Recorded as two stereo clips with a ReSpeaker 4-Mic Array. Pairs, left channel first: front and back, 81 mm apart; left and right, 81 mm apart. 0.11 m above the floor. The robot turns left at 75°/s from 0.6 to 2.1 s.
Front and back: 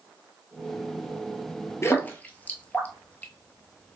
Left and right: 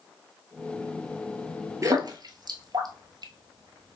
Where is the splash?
50° right, 0.8 m; by 4.0 s 70° right, 0.8 m.